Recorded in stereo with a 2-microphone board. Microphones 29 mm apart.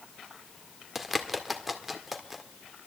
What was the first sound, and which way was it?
A bird, 10° right (ahead or behind).